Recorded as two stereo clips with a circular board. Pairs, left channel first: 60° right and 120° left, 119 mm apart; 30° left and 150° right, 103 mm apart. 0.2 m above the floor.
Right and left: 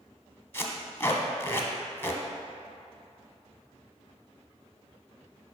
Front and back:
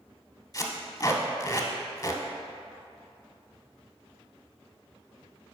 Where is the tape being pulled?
Straight ahead, 0.8 m.